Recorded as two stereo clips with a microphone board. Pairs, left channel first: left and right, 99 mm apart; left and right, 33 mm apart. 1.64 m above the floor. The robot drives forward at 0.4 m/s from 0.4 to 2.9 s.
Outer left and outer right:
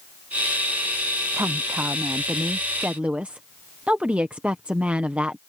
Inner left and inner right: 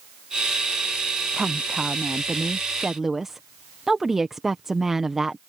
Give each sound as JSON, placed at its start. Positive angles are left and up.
{"t": 1.3, "sound": "a woman speaking", "side_deg": -25}